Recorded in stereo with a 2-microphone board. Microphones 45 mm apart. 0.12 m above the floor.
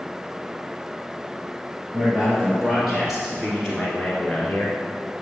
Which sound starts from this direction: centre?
A man speaking, at 1.9 s.